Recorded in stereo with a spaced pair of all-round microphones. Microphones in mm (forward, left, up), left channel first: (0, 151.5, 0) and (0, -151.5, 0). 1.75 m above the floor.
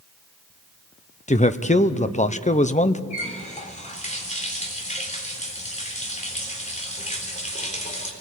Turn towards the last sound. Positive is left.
turn(degrees=25)  # may be behind; listen again after turning